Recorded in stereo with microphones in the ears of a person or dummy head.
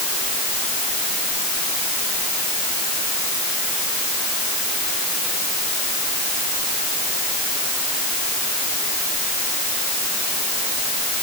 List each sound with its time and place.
Only background noise.